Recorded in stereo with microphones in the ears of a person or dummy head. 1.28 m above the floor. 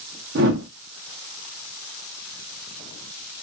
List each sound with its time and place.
0.3 s a whoosh: 50° right (ahead or behind), 0.6 m